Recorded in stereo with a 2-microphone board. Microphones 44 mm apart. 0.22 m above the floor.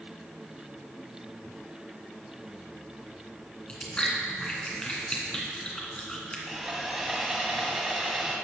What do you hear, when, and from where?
3.7 s chewing: 20° left (ahead or behind), 2.5 m
6.5 s sawing: 5° right (ahead or behind), 1.7 m